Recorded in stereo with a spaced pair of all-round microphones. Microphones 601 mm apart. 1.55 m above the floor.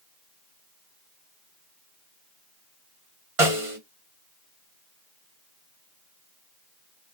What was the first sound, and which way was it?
A snare drum, 60° right (ahead or behind).